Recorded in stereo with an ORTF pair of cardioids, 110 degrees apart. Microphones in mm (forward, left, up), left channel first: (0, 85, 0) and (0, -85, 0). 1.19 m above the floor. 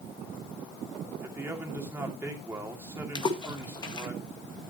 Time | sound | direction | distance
1.2 | a man speaking | 15° right | 3 m
3.1 | a splash | 30° left | 1.9 m